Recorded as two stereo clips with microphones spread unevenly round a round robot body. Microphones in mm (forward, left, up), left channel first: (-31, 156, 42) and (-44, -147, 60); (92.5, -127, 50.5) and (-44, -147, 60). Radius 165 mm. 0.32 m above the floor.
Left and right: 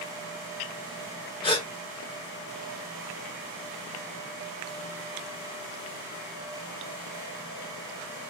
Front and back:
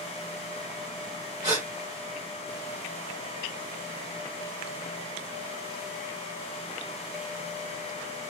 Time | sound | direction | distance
1.4 | a gasp | 145° left | 1.6 m